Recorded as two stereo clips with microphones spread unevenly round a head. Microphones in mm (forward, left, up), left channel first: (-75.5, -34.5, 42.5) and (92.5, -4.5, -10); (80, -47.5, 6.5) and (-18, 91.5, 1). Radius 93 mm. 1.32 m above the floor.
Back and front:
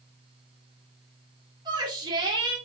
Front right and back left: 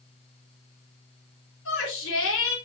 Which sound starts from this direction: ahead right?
A shout, at 1.6 s.